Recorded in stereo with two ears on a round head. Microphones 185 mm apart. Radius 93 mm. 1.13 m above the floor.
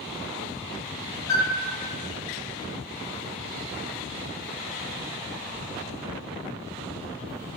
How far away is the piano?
About 1.1 m.